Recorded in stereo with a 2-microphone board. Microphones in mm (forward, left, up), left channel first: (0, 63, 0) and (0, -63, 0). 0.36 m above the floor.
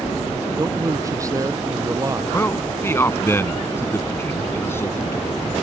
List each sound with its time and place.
0.6 s a man speaking: 25° right (ahead or behind)
2.3 s a man speaking: 20° left (ahead or behind)